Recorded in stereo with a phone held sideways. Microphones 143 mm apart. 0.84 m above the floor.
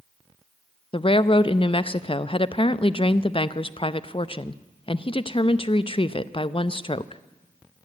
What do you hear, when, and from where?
0.9 s a woman speaking: 40° left (ahead or behind), 0.5 m